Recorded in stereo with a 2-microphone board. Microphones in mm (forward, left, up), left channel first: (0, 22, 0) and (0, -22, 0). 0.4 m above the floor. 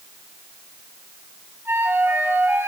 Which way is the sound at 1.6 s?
55° right (ahead or behind).